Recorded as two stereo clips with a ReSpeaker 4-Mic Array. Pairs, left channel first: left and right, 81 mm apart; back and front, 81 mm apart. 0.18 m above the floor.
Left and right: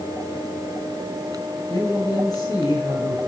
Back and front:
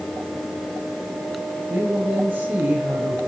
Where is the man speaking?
65° left, 4.5 m.